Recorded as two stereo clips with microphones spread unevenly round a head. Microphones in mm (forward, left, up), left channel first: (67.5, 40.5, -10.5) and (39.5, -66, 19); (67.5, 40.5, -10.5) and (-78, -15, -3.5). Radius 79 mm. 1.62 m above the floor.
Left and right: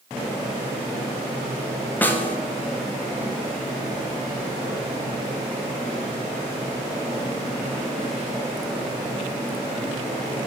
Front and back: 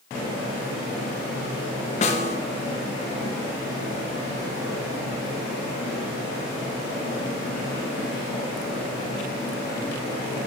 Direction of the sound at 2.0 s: 10° right.